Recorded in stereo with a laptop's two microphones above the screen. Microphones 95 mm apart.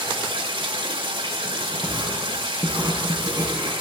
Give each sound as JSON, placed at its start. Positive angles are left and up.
{"t": 0.0, "sound": "running water", "side_deg": -75, "distance_m": 2.0}
{"t": 1.8, "sound": "writing", "side_deg": -30, "distance_m": 9.5}